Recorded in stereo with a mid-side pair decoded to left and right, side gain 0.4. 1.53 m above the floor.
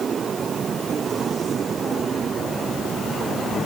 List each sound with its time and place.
Only background noise.